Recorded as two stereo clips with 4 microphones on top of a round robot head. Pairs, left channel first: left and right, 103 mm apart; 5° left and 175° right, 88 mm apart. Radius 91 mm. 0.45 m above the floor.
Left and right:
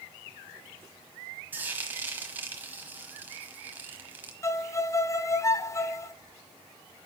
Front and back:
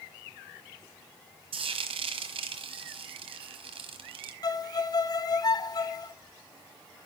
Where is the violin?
35° left, 0.9 m.